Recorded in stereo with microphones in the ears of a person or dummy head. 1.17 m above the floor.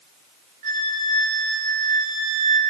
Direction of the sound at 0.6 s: 45° right (ahead or behind).